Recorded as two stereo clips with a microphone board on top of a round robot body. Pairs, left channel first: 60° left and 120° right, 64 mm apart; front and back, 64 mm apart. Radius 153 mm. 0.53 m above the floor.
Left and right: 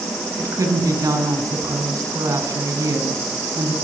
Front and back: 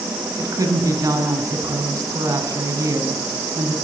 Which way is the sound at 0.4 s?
155° right.